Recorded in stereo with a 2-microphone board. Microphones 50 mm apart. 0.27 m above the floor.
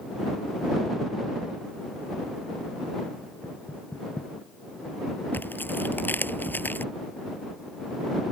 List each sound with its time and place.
3.4 s knocking: 35° left (ahead or behind)
5.3 s tearing paper: 40° left (ahead or behind)